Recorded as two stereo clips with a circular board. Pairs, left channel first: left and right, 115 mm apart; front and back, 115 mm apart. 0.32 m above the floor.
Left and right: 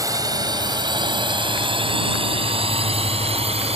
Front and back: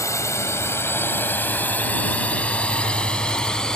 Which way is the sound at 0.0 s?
50° right.